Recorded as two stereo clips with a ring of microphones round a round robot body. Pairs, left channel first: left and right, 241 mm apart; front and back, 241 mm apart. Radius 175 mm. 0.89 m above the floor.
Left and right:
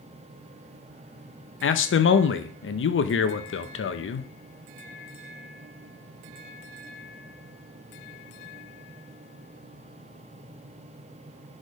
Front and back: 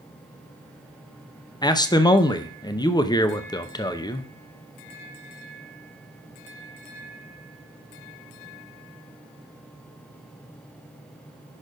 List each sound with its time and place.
1.6 s a man speaking: 70° left, 0.8 m